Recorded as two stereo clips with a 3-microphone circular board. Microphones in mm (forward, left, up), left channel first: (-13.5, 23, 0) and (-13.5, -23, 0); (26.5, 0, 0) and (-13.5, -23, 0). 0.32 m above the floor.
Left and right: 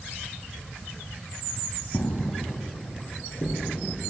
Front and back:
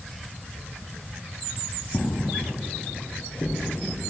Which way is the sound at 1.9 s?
75° left.